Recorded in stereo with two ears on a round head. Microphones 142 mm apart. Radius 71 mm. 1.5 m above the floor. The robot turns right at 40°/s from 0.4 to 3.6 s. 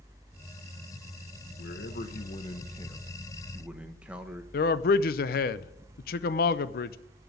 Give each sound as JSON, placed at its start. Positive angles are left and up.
{"t": 1.6, "sound": "a man speaking", "azimuth_deg": 110, "distance_m": 1.2}
{"t": 4.5, "sound": "a man speaking", "side_deg": 60, "distance_m": 0.6}